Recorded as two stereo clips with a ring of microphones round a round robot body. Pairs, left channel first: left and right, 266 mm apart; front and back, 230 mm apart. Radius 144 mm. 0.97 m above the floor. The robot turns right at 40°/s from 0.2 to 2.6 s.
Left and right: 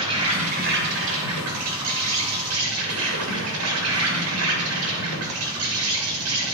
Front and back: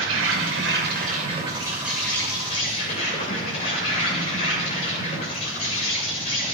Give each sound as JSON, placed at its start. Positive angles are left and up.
{"t": 0.0, "sound": "an insect", "azimuth_deg": -160, "distance_m": 2.5}